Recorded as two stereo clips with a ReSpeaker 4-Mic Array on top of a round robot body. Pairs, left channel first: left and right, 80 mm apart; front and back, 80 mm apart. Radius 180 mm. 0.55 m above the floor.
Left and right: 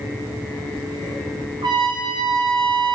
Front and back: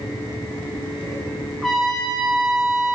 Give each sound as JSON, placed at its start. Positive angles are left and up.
{"t": 1.6, "sound": "a trumpet", "azimuth_deg": -90, "distance_m": 0.8}